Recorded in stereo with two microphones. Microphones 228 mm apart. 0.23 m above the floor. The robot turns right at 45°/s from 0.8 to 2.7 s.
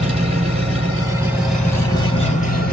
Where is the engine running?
30° right, 1.3 m; by 2.7 s 55° left, 1.3 m.